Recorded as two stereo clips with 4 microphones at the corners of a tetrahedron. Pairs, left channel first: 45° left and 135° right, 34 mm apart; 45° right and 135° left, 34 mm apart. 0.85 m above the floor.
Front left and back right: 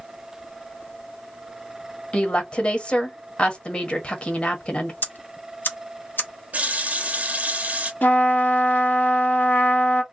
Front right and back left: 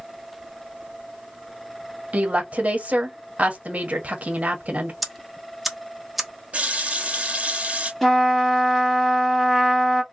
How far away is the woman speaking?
About 1.2 m.